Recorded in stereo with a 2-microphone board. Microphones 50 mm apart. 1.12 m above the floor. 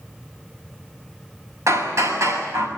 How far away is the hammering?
About 7 m.